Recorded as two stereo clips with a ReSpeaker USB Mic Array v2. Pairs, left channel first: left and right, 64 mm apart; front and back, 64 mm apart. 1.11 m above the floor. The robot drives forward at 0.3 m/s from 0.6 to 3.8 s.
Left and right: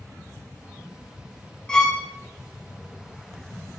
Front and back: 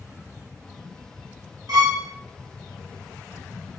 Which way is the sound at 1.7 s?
165° left.